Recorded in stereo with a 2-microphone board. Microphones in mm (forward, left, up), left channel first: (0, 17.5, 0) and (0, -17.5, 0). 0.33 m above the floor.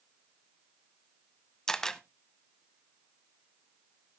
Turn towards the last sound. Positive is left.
turn(degrees=15)  # may be behind; listen again after turning